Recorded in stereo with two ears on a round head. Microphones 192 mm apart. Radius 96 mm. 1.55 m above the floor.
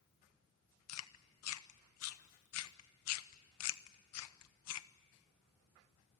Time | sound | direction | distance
0.9 | chewing | 80° left | 1.0 m